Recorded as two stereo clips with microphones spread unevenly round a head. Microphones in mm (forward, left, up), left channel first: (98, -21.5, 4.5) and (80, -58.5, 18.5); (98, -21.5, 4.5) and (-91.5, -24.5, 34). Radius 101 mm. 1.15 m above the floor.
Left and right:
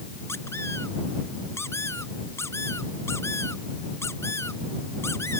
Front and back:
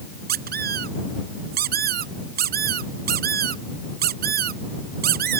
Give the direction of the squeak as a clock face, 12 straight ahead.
7 o'clock.